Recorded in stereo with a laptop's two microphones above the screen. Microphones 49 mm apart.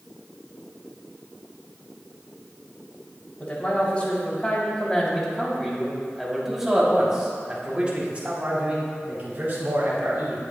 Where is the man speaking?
35° left (ahead or behind), 3.5 m; by 10.4 s 45° right (ahead or behind), 4 m.